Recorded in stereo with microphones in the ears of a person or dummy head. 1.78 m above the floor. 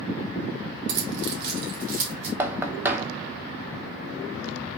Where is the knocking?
10° right (ahead or behind), 1.0 m.